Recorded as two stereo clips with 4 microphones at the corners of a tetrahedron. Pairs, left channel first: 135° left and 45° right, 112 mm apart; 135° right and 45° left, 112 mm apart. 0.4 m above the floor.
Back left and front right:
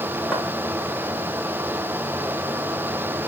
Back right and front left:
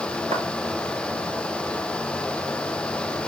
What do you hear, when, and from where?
0.3 s footsteps: 45° left, 4.5 m